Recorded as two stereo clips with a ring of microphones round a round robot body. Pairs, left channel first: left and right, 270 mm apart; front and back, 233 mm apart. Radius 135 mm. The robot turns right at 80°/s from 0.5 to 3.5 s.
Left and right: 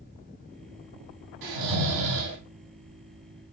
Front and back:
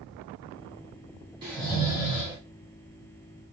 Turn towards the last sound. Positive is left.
turn(degrees=60)